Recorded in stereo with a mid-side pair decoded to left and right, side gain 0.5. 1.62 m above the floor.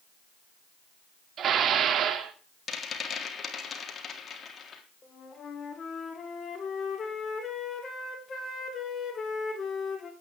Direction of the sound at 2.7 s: 40° left.